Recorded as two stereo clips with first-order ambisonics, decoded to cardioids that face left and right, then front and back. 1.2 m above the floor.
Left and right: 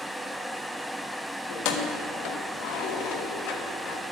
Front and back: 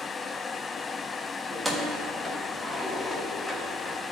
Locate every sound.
1.5 s keys jangling: 95° left, 1.1 m